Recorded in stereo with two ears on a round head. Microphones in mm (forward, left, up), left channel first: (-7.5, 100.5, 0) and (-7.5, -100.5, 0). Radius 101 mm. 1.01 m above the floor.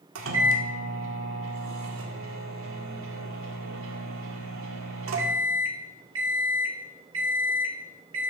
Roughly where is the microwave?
Right.